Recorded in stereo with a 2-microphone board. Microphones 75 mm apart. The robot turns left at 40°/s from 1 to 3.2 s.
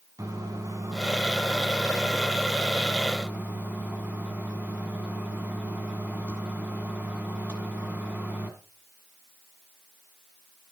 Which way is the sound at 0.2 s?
65° right.